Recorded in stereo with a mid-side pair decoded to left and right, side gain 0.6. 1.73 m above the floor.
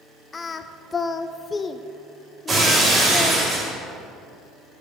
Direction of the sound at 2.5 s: 30° right.